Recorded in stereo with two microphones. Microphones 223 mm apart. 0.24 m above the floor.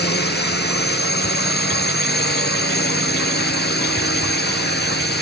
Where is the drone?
45° left (ahead or behind).